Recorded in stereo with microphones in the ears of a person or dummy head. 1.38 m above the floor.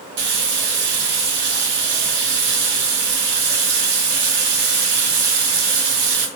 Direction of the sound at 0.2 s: 65° right (ahead or behind).